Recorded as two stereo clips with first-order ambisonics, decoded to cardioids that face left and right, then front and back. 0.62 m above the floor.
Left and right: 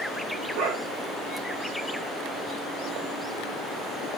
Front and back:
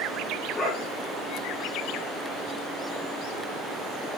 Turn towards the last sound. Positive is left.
turn(degrees=-70)